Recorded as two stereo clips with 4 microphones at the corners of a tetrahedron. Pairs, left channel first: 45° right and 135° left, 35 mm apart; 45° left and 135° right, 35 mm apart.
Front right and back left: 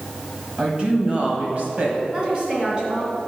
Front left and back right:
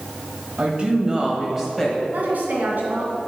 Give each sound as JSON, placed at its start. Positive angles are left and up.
{"t": 0.6, "sound": "a woman speaking", "azimuth_deg": -170, "distance_m": 1.7}
{"t": 2.1, "sound": "a woman speaking", "azimuth_deg": -165, "distance_m": 2.5}